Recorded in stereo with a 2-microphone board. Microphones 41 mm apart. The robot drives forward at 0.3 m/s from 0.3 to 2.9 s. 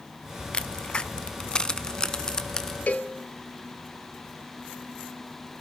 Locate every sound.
0.5 s a crack: 25° left (ahead or behind), 0.5 m; by 2.8 s 15° left (ahead or behind), 0.9 m
2.9 s a cowbell: 35° left (ahead or behind), 1.0 m